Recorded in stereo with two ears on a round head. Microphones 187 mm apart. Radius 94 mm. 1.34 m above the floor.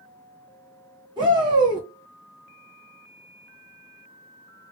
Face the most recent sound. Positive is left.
turn(degrees=-25)  # may be behind; listen again after turning